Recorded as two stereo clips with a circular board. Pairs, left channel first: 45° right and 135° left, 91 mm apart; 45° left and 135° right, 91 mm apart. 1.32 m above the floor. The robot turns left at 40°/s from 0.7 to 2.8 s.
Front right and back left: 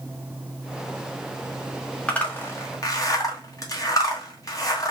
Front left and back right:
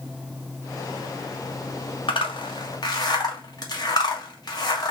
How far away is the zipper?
About 1.1 m.